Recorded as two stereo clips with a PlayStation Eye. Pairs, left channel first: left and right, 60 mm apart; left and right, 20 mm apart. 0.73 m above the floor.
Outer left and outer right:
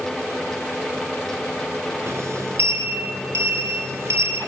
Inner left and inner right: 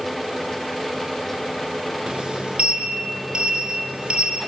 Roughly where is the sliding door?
Right.